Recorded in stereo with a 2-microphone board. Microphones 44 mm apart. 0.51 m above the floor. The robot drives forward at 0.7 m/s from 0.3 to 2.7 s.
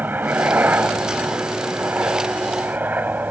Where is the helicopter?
45° right (ahead or behind).